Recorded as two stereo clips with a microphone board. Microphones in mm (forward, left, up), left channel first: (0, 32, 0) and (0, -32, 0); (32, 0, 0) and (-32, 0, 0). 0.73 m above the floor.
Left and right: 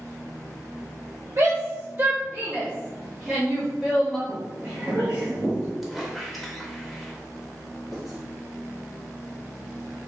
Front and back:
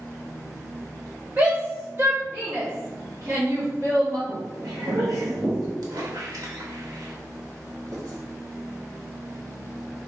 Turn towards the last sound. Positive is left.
turn(degrees=180)